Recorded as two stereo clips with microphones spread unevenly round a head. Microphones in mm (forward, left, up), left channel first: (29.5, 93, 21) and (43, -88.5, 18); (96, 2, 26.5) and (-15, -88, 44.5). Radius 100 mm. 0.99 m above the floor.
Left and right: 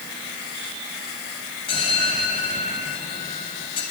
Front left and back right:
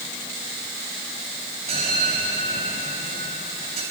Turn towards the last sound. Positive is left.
turn(degrees=160)